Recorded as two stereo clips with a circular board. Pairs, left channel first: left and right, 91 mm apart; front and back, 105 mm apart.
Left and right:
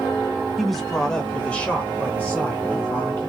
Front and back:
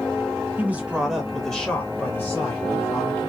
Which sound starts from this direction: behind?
A man speaking, at 0.6 s.